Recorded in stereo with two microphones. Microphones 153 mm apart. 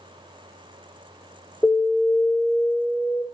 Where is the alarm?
20° left (ahead or behind), 5.5 m.